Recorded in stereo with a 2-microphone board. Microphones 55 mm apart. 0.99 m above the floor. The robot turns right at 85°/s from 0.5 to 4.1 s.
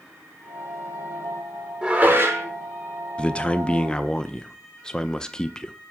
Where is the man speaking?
20° left (ahead or behind), 0.5 m; by 5.7 s 15° left (ahead or behind), 0.5 m.